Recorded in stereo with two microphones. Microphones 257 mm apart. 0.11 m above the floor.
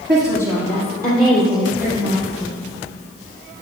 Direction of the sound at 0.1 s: 50° right (ahead or behind).